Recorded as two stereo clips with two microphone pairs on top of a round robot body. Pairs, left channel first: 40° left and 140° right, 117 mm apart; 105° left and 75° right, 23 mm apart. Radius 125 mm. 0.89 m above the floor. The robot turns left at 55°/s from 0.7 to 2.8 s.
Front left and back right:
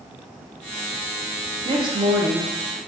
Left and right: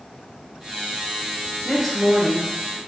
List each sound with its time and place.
1.6 s a woman speaking: 155° right, 0.9 m; by 2.8 s 140° left, 0.9 m